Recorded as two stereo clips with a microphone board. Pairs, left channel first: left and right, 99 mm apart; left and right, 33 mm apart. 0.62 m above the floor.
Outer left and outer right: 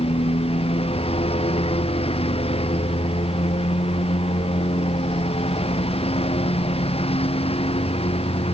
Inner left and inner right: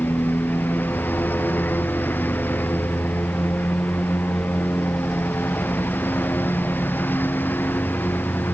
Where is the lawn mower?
75° left (ahead or behind); by 8.5 s 80° left.